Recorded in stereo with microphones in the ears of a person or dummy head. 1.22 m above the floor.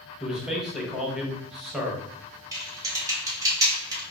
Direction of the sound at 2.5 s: 15° right (ahead or behind).